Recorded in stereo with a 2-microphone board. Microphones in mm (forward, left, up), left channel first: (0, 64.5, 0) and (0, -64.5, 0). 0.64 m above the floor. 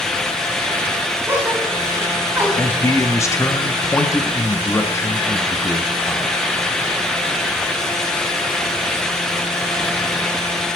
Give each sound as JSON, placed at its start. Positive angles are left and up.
{"t": 1.3, "sound": "a gasp", "side_deg": -20, "distance_m": 3.0}
{"t": 2.6, "sound": "a man speaking", "side_deg": 20, "distance_m": 0.8}